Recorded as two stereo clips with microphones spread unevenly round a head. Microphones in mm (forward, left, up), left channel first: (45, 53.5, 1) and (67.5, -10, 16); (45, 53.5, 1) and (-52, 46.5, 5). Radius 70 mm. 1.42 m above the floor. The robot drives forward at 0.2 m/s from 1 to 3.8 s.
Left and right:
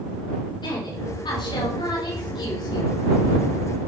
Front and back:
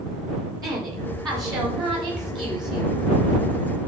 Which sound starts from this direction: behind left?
A woman speaking, at 0.6 s.